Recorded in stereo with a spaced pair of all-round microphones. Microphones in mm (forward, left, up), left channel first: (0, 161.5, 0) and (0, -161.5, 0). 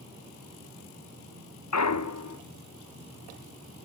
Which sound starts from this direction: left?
A clunk, at 1.7 s.